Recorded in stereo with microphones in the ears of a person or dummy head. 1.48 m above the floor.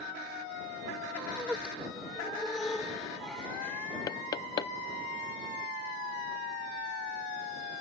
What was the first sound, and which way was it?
Laughter, 10° right (ahead or behind).